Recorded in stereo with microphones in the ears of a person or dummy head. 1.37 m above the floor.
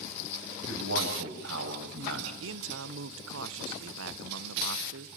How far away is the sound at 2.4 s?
About 1.1 m.